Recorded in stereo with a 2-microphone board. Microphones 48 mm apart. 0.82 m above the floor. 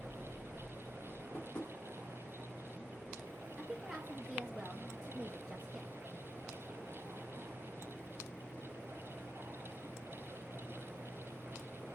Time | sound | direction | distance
1.3 | tapping | 55° left (ahead or behind) | 1.2 m
3.6 | a woman speaking | 5° right (ahead or behind) | 0.7 m